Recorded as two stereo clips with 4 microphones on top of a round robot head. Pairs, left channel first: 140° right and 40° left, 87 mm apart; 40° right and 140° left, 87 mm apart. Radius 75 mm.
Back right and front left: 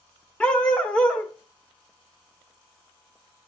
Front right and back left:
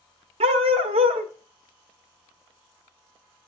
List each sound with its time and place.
0.4 s a dog barking: 145° left, 1.1 m